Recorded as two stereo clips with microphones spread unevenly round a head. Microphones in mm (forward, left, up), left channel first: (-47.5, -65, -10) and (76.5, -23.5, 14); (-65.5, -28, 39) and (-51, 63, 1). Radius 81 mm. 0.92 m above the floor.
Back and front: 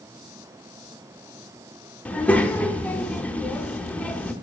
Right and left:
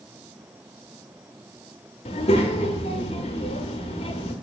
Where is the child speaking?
80° right, 0.7 m.